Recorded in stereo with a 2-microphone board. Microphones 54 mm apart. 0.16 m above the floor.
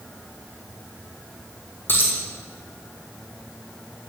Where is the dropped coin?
40° left (ahead or behind), 2 m.